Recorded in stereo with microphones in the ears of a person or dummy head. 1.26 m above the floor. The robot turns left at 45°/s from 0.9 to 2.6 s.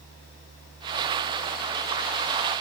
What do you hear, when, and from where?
Only background noise.